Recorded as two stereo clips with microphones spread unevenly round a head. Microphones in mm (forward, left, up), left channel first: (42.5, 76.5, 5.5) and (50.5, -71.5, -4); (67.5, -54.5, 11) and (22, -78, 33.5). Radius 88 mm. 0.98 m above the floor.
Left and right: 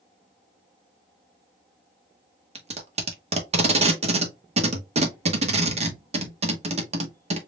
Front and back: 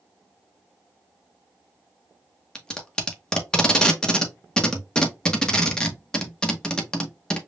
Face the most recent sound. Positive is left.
turn(degrees=-40)